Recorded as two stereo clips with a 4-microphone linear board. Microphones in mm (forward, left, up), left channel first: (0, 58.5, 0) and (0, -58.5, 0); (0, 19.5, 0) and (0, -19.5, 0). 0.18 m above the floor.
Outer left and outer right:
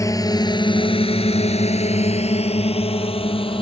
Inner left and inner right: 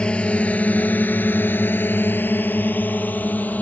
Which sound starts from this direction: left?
A drone, at 0.0 s.